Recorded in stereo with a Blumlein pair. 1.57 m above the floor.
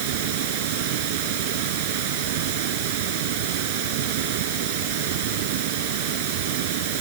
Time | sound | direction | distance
0.0 | running water | 50° right | ?